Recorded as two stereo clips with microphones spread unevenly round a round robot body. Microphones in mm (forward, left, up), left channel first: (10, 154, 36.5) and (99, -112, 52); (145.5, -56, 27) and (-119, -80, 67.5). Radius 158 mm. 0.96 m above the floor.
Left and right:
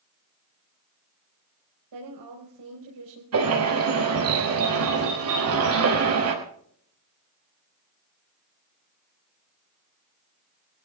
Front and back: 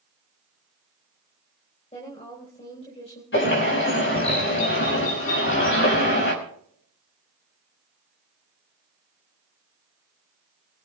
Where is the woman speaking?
60° right, 4.5 m.